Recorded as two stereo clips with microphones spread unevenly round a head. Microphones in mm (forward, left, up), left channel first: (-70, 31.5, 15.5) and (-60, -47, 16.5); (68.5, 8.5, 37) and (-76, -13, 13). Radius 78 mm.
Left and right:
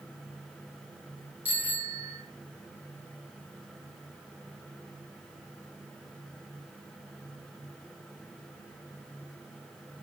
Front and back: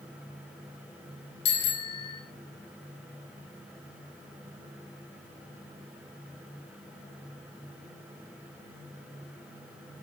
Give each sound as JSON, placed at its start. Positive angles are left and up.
{"t": 1.4, "sound": "a bicycle bell", "azimuth_deg": -5, "distance_m": 7.5}